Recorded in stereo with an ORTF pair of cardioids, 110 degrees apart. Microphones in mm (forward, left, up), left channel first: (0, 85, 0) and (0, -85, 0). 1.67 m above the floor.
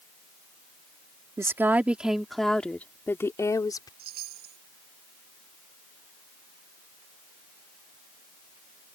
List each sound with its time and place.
1.4 s a woman speaking: 15° right; by 3.9 s 25° left
4.0 s a chime: 70° right